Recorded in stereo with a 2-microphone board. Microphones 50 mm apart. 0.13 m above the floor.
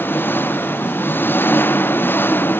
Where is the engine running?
45° left (ahead or behind).